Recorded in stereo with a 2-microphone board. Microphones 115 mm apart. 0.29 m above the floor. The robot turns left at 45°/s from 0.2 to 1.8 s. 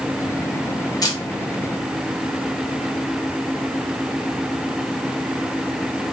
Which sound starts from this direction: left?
A camera shutter, at 1.0 s.